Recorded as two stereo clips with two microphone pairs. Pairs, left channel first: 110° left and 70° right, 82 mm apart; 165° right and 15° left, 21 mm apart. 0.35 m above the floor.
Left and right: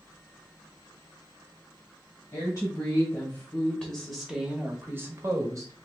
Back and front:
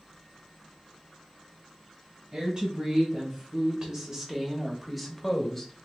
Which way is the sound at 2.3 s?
55° left.